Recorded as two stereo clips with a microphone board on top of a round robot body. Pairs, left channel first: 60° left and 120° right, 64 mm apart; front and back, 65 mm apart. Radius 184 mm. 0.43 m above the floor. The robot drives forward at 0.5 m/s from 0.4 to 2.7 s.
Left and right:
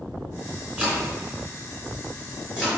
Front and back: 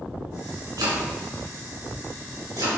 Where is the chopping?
170° left, 3.5 m.